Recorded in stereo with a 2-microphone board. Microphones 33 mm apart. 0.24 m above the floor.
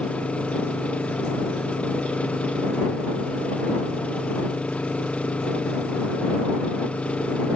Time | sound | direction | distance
0.0 | an engine running | 40° left (ahead or behind) | ?